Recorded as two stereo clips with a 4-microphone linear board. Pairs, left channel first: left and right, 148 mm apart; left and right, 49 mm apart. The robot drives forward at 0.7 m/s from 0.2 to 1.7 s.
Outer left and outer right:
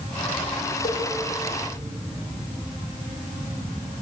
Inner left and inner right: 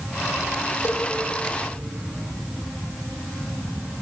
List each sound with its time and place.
0.8 s a cowbell: 80° left, 6 m